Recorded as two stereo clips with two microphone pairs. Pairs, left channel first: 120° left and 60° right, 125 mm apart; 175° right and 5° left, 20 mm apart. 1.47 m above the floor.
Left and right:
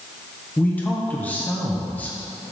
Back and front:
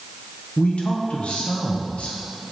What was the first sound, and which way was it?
A man speaking, 160° right.